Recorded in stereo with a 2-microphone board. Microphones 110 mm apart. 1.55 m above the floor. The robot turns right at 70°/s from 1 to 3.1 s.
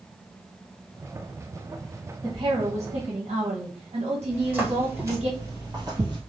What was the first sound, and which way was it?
A woman speaking, 140° right.